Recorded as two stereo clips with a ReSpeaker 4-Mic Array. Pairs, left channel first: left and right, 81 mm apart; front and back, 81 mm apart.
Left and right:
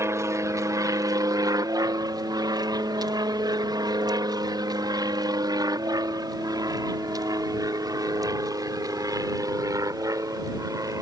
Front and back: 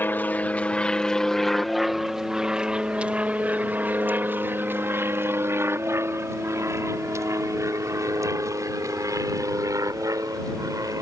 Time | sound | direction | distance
0.0 | an aircraft | 55° right | ?